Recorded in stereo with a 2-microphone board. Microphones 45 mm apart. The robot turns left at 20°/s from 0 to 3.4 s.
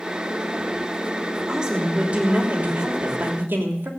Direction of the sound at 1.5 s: 15° right.